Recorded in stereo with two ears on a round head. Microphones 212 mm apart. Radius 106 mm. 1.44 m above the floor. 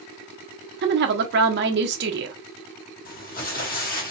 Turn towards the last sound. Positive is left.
turn(degrees=40)  # may be behind; listen again after turning